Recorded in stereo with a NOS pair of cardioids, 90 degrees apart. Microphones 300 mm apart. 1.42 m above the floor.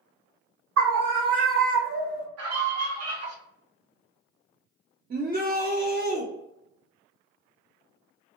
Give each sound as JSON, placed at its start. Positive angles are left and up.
{"t": 0.8, "sound": "a scream", "azimuth_deg": -55, "distance_m": 0.8}
{"t": 2.4, "sound": "a scream", "azimuth_deg": -55, "distance_m": 1.1}
{"t": 5.1, "sound": "a shout", "azimuth_deg": -30, "distance_m": 0.6}